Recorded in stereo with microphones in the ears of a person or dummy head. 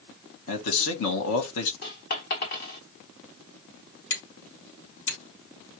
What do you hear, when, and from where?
0.5 s a man speaking: 75° left (ahead or behind), 1.4 m
1.8 s a dropped coin: 45° left (ahead or behind), 1.1 m
4.1 s hammering: 65° left (ahead or behind), 3.5 m